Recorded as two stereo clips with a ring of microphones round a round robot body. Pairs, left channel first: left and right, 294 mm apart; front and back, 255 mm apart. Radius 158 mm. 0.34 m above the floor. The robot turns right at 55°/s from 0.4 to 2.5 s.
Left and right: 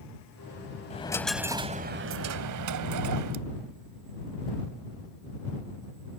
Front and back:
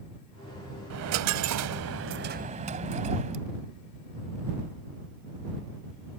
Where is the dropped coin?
160° left; by 3.5 s 115° right.